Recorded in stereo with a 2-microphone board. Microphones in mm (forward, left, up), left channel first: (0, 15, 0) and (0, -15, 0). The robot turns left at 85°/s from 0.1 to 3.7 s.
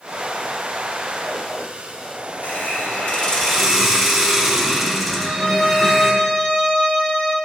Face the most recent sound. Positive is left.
turn(degrees=45)  # may be behind; listen again after turning